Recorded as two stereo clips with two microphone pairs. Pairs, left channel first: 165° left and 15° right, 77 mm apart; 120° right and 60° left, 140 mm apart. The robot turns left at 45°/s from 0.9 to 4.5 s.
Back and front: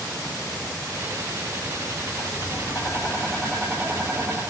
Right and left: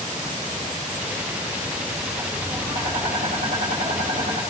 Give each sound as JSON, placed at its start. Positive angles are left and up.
{"t": 2.2, "sound": "tapping", "azimuth_deg": 135, "distance_m": 3.0}